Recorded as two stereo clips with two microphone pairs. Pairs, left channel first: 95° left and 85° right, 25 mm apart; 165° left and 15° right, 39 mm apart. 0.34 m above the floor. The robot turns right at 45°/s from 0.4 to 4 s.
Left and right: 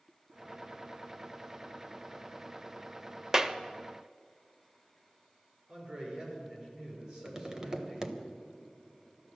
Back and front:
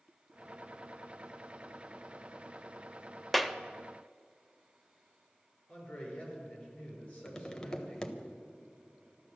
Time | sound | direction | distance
3.3 | a clap | 110° right | 0.7 m
5.7 | a man speaking | 130° right | 6 m
7.2 | tapping | 130° right | 1.2 m